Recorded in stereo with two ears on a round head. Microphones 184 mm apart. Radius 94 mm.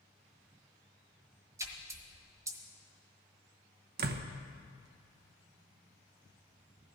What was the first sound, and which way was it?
A splash, 15° right (ahead or behind).